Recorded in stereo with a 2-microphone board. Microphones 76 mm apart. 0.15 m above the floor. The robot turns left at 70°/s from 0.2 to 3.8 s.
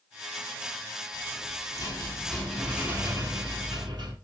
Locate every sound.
1.1 s a rattle: 100° left, 3 m; by 4.2 s 85° right, 3 m